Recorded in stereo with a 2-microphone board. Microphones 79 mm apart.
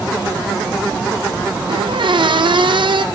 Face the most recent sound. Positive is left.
turn(degrees=-75)  # may be behind; listen again after turning